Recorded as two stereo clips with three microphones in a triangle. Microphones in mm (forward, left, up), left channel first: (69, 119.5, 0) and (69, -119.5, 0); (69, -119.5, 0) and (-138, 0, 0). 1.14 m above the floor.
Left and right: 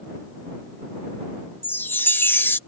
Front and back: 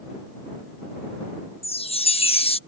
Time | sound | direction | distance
1.6 | a chime | 15° left | ?